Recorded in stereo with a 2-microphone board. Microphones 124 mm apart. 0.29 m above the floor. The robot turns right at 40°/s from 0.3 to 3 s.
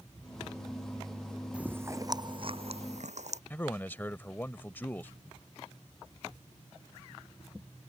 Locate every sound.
1.5 s chewing: 10° right (ahead or behind); by 3.4 s 70° right (ahead or behind)
3.5 s a man speaking: 15° left (ahead or behind)